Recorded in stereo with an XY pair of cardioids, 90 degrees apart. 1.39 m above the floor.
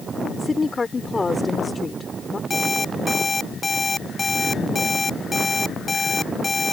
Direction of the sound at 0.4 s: 30° left.